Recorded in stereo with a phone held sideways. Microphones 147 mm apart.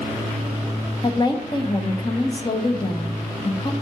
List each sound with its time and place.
1.0 s a woman speaking: 30° left (ahead or behind), 1.1 m